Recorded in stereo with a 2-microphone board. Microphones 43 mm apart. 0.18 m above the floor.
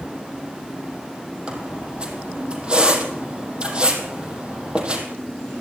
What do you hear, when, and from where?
1.5 s a squeak: 25° right (ahead or behind), 4 m